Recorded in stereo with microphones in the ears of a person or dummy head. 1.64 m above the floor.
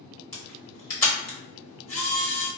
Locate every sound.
0.3 s a camera shutter: 25° left (ahead or behind), 1.6 m